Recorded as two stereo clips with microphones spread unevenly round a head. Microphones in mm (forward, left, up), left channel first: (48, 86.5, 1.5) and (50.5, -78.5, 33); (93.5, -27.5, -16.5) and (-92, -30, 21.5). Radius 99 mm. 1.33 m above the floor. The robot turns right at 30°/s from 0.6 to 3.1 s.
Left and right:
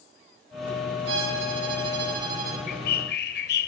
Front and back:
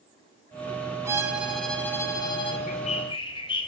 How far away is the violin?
About 4 m.